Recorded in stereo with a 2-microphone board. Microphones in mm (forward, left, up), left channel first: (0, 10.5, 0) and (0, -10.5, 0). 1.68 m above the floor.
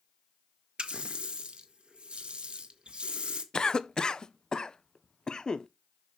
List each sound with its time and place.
0.8 s a running tap: 55° right (ahead or behind), 1.2 m
3.5 s a cough: 35° left (ahead or behind), 0.5 m